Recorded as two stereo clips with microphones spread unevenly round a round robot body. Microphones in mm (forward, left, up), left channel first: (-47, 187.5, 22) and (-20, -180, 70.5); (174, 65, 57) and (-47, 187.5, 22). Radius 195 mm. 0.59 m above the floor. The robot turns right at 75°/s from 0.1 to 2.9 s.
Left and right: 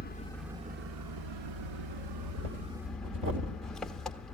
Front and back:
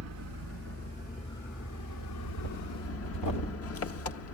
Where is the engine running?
160° left, 0.9 m; by 4.4 s 10° left, 0.9 m.